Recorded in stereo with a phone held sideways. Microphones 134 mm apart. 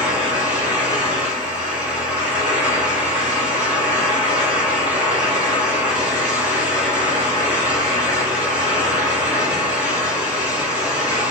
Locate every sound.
0.0 s a fan: 10° right (ahead or behind), 3.5 m